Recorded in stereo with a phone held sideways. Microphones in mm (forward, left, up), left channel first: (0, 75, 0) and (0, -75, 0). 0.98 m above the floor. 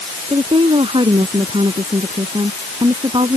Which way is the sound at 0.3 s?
35° right (ahead or behind).